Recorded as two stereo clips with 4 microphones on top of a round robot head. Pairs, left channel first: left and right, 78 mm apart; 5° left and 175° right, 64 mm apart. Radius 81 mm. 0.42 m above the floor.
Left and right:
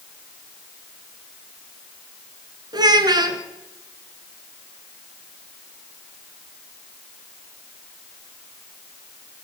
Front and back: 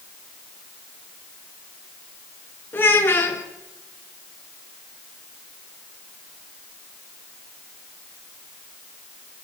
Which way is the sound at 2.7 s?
60° right.